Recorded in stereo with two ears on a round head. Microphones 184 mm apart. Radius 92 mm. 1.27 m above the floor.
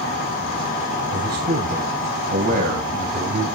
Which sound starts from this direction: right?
A man speaking, at 1.1 s.